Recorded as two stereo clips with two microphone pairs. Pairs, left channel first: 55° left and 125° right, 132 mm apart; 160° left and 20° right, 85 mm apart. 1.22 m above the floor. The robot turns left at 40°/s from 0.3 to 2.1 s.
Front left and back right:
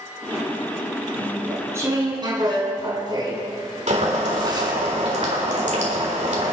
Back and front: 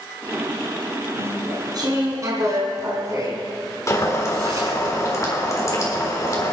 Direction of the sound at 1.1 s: 35° right.